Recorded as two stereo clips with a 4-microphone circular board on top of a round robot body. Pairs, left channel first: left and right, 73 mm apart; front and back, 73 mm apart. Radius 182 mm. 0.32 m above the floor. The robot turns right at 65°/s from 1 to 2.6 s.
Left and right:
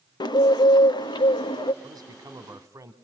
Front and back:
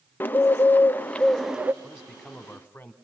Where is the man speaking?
115° right, 2.5 m; by 2.9 s 65° right, 2.5 m.